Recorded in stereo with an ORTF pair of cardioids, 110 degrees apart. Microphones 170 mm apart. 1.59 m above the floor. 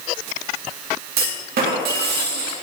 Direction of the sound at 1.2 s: 65° right.